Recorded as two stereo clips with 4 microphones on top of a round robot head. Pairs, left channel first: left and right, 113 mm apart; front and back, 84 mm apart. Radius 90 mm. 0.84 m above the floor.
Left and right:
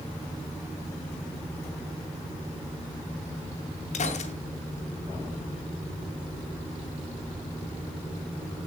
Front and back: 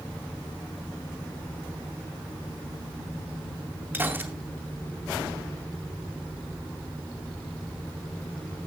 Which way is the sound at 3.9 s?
115° left.